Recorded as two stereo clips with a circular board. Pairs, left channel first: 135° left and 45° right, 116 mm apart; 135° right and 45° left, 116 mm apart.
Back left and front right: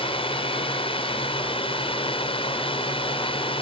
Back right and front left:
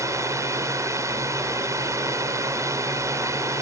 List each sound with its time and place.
0.0 s a drone: 105° left